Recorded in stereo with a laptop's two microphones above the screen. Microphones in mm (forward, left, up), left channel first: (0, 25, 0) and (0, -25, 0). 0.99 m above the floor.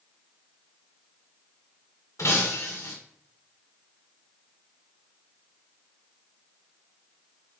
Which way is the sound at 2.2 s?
85° left.